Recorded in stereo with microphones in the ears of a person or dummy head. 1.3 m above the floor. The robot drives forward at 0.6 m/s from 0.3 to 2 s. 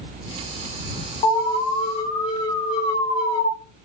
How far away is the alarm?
About 3 m.